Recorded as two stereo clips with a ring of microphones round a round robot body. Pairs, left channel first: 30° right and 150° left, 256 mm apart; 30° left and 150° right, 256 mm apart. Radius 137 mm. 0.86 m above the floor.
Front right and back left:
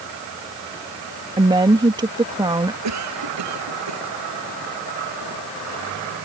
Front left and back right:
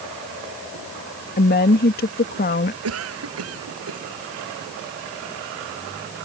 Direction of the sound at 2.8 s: 175° left.